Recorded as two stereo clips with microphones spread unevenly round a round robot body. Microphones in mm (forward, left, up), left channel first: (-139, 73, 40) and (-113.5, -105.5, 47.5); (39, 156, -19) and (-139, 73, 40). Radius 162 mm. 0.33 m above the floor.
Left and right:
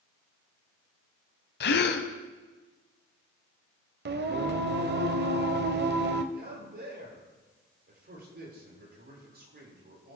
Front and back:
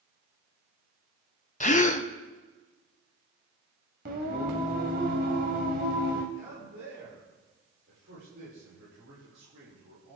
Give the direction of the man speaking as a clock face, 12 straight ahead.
4 o'clock.